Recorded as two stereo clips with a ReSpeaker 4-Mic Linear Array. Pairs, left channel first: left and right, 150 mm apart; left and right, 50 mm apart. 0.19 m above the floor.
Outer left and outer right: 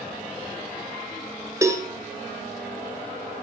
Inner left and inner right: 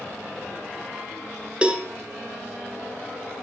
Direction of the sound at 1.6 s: 20° right (ahead or behind).